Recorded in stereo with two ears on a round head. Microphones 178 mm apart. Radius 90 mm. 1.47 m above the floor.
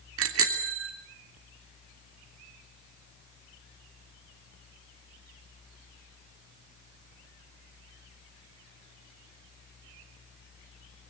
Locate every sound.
0.2 s a bicycle bell: 75° right (ahead or behind), 3 m